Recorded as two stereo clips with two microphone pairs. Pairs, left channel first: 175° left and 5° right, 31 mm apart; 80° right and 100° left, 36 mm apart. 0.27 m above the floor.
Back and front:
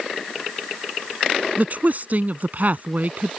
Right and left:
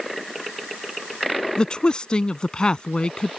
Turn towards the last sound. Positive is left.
turn(degrees=-15)